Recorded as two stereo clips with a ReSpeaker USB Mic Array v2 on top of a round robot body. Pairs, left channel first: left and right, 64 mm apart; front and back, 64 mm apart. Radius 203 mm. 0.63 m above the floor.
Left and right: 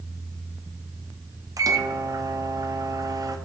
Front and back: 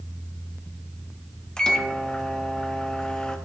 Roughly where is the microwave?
Right.